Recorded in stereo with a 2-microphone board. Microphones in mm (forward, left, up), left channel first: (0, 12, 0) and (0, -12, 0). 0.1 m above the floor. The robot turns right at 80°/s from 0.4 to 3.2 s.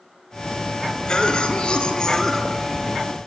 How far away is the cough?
About 2.5 m.